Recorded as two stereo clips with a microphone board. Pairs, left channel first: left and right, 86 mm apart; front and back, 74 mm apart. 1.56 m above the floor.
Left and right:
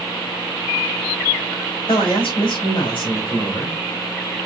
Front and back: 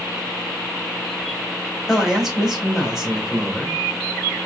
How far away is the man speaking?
About 3.5 m.